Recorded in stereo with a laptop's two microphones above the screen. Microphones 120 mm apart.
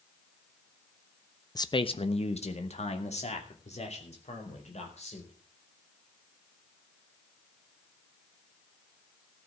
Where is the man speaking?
30° left (ahead or behind), 0.8 m; by 5.3 s 65° left (ahead or behind), 5 m.